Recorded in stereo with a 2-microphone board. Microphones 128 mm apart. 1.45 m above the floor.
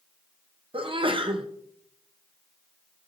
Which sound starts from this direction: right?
A sneeze, at 0.7 s.